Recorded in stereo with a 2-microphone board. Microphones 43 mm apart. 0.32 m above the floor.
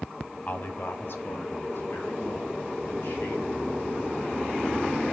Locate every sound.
0.5 s a man speaking: 40° left (ahead or behind), 1.9 m; by 5.0 s 50° left (ahead or behind), 6 m